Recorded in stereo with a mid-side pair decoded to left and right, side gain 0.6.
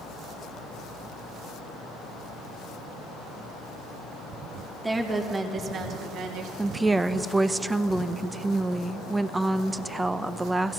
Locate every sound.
4.8 s a woman speaking: 15° right, 2 m; by 6.5 s 70° right, 1.7 m
6.6 s a woman speaking: 15° right, 0.7 m